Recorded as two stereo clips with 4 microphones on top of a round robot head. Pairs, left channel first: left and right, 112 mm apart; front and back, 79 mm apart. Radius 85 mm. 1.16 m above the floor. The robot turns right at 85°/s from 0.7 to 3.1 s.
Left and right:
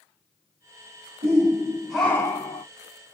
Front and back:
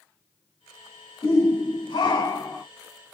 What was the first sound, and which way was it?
A shout, 60° right.